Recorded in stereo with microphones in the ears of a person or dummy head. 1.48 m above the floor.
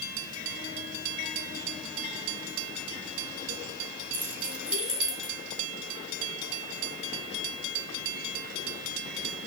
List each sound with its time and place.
4.1 s keys jangling: 10° right (ahead or behind), 2.5 m; by 5.3 s centre (ahead or behind), 3 m